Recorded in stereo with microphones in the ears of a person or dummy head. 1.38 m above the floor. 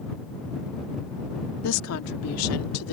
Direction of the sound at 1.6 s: 80° left.